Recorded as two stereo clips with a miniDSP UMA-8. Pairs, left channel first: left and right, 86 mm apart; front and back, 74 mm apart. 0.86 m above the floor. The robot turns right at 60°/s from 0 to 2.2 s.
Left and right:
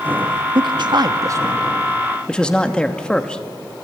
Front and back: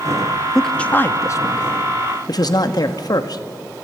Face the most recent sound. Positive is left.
turn(degrees=10)